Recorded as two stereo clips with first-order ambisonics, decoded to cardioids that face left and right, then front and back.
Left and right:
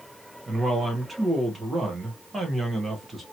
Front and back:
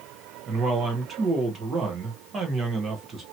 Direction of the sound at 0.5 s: 150° right.